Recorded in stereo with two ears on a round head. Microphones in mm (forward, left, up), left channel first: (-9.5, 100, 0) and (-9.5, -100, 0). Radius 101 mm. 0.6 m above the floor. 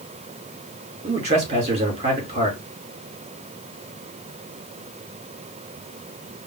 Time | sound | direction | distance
1.0 | a man speaking | 30° right (ahead or behind) | 2 m